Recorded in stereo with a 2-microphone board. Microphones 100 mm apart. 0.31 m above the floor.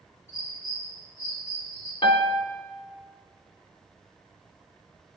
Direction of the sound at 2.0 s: 65° left (ahead or behind).